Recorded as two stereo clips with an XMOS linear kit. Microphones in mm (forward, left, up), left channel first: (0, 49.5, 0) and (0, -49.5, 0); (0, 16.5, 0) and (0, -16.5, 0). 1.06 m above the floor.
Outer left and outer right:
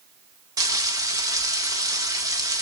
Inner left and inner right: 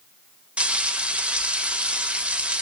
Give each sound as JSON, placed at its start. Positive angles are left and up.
{"t": 0.6, "sound": "frying", "side_deg": -35, "distance_m": 1.0}